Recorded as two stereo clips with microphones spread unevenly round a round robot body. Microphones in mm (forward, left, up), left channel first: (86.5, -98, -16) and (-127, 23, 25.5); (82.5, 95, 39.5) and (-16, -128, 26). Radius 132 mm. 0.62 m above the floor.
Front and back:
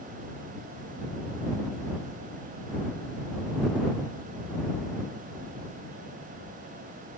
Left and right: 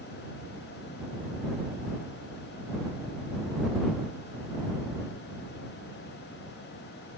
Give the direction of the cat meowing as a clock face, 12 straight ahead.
I don't hear a cat meowing.